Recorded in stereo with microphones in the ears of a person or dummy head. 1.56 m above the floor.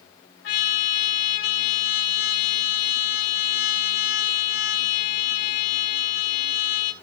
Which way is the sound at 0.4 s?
60° left (ahead or behind).